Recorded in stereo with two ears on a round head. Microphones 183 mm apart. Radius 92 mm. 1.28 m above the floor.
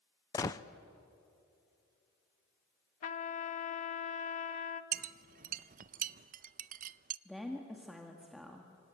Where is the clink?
40° right (ahead or behind), 0.5 m.